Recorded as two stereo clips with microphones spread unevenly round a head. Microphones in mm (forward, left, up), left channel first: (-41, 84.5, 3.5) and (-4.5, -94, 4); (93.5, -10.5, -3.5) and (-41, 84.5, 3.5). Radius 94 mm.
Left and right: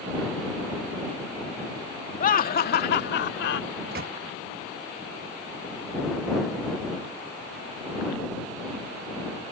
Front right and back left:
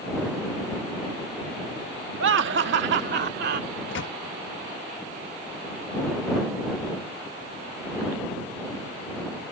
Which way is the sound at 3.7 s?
35° right.